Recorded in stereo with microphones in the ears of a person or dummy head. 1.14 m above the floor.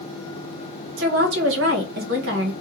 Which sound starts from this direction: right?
A woman speaking, at 1.0 s.